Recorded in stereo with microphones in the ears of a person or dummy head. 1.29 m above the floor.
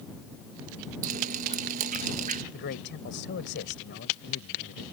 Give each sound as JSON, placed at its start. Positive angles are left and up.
{"t": 1.0, "sound": "dripping", "side_deg": -45}
{"t": 2.5, "sound": "a man speaking", "side_deg": 60}